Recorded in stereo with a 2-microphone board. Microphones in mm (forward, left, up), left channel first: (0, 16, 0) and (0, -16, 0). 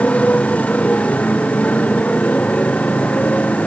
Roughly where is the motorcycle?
Left.